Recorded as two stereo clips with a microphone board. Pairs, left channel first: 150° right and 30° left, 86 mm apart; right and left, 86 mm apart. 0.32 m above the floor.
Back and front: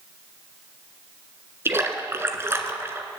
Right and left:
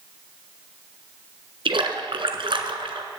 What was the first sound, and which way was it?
A splash, 90° left.